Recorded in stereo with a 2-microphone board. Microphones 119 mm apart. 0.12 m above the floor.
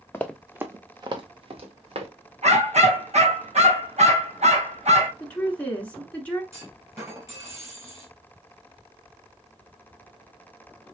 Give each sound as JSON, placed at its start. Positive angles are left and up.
{"t": 0.1, "sound": "running footsteps", "side_deg": 20, "distance_m": 0.6}
{"t": 2.4, "sound": "a dog barking", "side_deg": -70, "distance_m": 1.3}
{"t": 5.2, "sound": "a woman speaking", "side_deg": 10, "distance_m": 1.1}
{"t": 6.5, "sound": "a clunk", "side_deg": -25, "distance_m": 2.5}